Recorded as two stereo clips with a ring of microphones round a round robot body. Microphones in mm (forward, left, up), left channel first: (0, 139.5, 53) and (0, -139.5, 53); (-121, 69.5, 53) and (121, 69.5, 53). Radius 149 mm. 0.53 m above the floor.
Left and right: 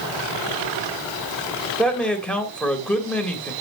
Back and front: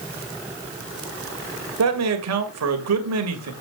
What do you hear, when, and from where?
1.8 s a man speaking: 5° left, 2.5 m